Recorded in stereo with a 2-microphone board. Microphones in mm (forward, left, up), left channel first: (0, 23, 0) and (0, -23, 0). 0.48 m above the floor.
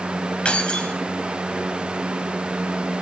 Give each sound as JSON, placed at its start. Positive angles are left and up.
{"t": 0.5, "sound": "keys jangling", "side_deg": 25, "distance_m": 1.7}